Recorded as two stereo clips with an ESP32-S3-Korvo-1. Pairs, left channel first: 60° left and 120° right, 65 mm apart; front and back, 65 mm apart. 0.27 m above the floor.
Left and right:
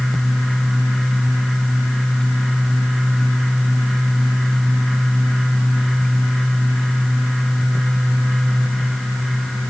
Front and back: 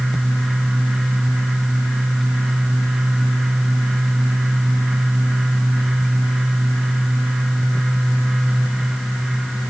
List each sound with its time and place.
Only background noise.